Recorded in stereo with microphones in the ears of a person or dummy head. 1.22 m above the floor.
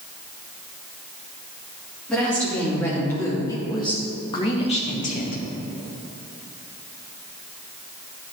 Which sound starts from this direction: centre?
A woman speaking, at 2.1 s.